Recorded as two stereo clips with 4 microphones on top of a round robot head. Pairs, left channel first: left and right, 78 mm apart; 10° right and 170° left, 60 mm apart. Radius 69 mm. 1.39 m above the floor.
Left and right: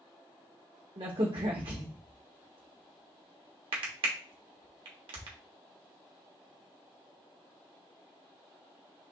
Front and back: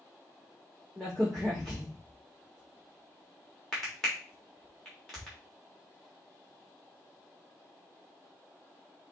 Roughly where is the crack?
Right.